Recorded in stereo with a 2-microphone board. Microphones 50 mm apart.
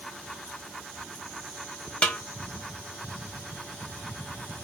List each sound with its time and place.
2.0 s a snare drum: 25° left (ahead or behind), 0.7 m